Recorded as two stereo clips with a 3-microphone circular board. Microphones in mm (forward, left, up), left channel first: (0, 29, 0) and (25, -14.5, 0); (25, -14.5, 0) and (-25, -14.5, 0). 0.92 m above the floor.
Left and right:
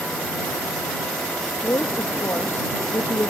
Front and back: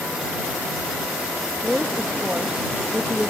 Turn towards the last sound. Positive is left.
turn(degrees=110)